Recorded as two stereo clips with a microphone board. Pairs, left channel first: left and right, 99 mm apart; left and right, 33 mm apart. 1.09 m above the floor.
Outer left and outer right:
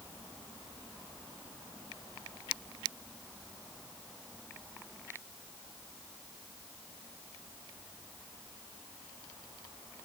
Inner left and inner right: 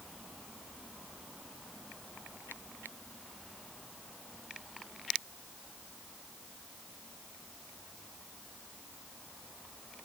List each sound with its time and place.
Only background noise.